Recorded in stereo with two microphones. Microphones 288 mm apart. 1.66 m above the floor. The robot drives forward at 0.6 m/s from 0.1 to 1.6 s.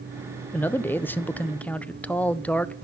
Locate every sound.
0.5 s a man speaking: 5° left (ahead or behind), 0.5 m